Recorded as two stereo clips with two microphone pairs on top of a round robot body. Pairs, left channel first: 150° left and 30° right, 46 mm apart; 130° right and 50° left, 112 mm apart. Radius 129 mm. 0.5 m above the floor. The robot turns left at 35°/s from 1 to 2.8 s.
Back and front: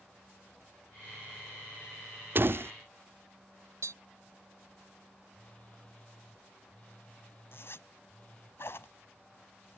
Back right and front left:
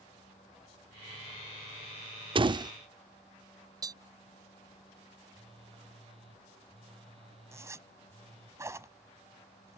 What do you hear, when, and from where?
2.4 s a door slam: 10° left; by 2.7 s straight ahead
3.8 s tapping: 10° right
5.3 s a phone buzzing: 85° left
7.5 s a zipper: 115° left